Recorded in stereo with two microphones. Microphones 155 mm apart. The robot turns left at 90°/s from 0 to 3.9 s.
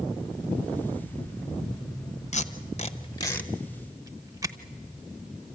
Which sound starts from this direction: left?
Tape being pulled, at 2.3 s.